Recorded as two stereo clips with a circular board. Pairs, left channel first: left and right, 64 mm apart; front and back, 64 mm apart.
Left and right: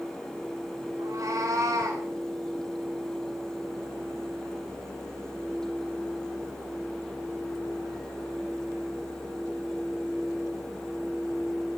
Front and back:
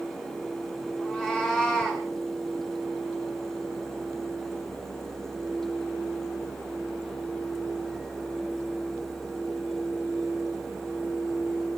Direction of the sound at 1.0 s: 80° right.